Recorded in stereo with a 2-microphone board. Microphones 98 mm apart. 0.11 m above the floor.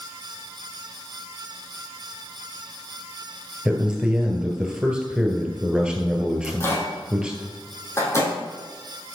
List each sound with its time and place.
3.6 s a man speaking: 10° right (ahead or behind), 1.7 m
6.4 s a microwave: 30° left (ahead or behind), 3 m